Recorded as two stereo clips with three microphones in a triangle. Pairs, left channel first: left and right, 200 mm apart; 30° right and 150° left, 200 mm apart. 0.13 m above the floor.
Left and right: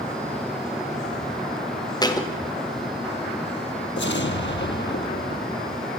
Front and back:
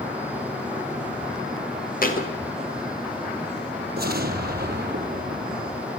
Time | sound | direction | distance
2.0 | a thud | 20° left | 3.5 m
4.0 | an explosion | 115° left | 1.3 m